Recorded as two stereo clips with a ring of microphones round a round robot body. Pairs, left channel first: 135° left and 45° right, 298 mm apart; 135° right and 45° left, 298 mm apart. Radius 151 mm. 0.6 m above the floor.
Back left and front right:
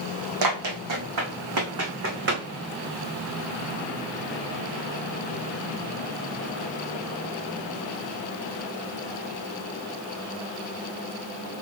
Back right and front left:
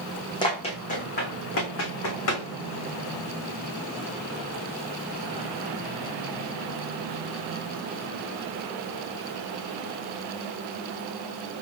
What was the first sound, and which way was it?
Running footsteps, 60° right.